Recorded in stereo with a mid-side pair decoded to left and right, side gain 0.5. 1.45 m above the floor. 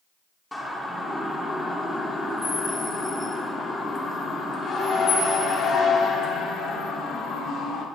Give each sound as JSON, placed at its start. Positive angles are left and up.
{"t": 0.5, "sound": "a siren", "azimuth_deg": 10, "distance_m": 4.5}